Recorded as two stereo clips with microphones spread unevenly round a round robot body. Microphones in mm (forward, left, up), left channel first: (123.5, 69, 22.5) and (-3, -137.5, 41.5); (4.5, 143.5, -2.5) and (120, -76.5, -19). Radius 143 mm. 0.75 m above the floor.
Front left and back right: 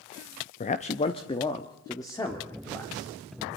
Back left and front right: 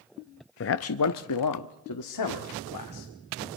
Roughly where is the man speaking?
Left.